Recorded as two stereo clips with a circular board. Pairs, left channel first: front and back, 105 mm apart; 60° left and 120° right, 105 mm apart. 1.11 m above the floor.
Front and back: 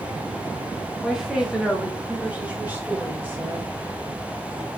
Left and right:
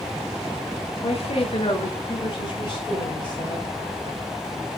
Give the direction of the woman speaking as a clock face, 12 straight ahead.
9 o'clock.